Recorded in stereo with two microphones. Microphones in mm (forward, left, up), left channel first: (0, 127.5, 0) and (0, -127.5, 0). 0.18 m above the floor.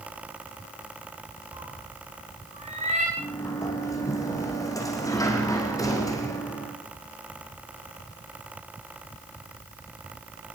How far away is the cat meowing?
About 7.5 m.